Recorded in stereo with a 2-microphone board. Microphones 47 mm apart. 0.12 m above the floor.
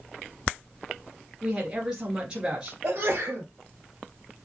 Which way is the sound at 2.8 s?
40° right (ahead or behind).